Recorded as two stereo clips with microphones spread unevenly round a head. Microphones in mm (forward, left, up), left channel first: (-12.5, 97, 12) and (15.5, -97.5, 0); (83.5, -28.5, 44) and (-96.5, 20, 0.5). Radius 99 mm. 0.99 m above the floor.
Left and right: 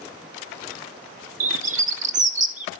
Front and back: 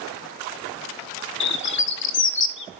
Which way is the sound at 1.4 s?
30° right.